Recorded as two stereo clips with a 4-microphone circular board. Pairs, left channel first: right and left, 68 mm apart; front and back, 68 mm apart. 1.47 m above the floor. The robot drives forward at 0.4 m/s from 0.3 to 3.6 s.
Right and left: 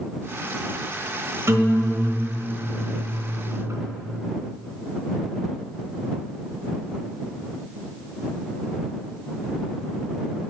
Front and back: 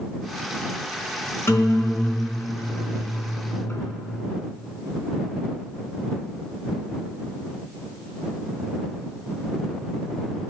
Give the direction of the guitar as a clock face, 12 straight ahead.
10 o'clock.